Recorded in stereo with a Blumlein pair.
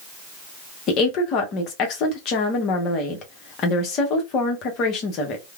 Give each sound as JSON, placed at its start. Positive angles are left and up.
{"t": 0.9, "sound": "a woman speaking", "azimuth_deg": 35, "distance_m": 0.9}